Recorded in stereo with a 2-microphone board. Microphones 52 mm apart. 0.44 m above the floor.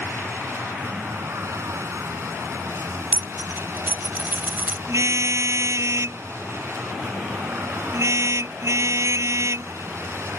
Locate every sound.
0.0 s a vehicle: 70° right (ahead or behind)
3.1 s a dropped coin: 40° right (ahead or behind)
4.9 s a car horn: 75° right (ahead or behind)